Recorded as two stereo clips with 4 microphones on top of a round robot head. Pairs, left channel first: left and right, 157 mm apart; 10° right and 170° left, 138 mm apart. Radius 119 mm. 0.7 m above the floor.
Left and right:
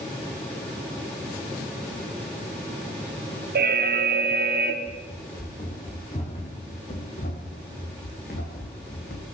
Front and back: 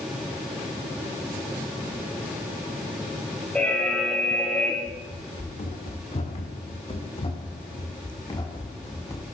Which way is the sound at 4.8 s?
25° left.